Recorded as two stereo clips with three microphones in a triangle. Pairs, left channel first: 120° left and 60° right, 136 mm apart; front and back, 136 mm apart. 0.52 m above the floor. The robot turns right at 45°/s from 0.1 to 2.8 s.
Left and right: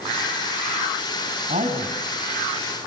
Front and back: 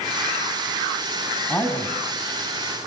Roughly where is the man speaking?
Right.